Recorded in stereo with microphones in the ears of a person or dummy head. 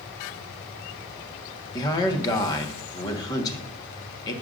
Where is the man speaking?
25° left (ahead or behind), 1.5 m.